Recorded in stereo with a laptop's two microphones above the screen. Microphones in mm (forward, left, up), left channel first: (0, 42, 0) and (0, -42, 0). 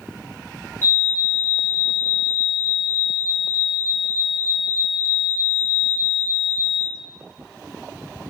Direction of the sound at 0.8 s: 30° left (ahead or behind).